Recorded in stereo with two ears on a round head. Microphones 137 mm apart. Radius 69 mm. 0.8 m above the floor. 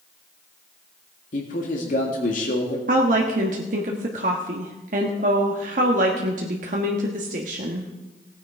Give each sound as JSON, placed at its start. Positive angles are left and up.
{"t": 1.3, "sound": "a man speaking", "side_deg": 60, "distance_m": 1.8}
{"t": 2.9, "sound": "a woman speaking", "side_deg": -55, "distance_m": 1.3}